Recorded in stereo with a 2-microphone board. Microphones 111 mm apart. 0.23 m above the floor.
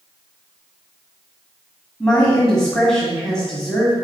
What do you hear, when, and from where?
2.0 s a woman speaking: 5° left (ahead or behind), 1.7 m